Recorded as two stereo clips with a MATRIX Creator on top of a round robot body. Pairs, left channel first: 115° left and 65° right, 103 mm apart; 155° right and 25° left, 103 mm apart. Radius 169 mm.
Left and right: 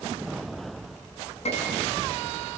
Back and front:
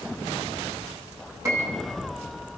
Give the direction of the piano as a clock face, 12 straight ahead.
9 o'clock.